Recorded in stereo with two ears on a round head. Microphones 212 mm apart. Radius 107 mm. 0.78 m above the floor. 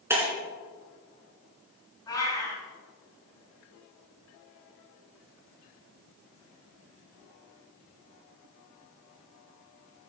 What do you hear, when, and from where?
0.1 s breaking glass: 10° right (ahead or behind), 3.5 m
2.1 s a cat meowing: 20° left (ahead or behind), 5 m